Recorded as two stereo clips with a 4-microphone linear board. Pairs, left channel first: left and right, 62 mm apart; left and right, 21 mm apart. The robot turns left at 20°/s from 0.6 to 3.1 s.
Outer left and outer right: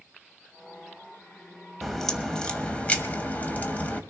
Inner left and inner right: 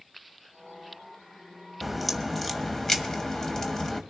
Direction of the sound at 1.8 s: Centre (ahead or behind).